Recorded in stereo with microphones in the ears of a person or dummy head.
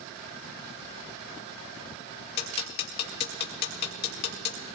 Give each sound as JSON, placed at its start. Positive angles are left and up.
{"t": 2.4, "sound": "ticking", "side_deg": 60, "distance_m": 2.0}